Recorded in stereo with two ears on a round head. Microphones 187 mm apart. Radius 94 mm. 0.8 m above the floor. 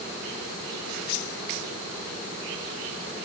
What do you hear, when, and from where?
Only background noise.